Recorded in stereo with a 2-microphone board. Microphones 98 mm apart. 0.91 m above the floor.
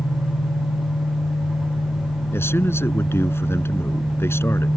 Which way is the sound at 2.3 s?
25° left (ahead or behind).